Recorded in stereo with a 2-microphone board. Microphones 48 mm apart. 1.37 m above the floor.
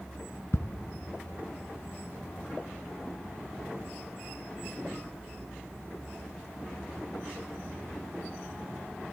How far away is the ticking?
About 0.9 m.